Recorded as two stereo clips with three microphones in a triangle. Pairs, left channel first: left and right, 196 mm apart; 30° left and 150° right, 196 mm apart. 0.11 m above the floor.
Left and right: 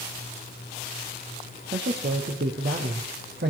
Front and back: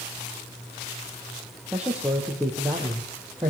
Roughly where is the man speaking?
Ahead right.